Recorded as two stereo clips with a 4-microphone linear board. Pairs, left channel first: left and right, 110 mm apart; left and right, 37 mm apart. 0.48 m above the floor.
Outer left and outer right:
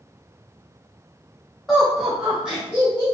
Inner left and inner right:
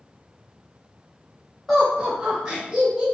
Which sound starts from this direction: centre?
Laughter, at 1.7 s.